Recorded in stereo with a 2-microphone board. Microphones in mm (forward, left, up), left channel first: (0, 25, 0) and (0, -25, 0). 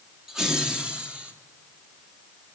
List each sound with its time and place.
0.3 s laughter: 10° right (ahead or behind), 1.2 m; by 1.3 s 25° right (ahead or behind), 1.7 m